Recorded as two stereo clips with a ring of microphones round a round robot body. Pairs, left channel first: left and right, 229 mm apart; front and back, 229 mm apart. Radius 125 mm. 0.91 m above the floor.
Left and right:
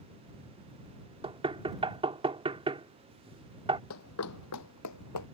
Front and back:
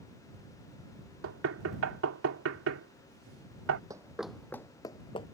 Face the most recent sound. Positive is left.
turn(degrees=70)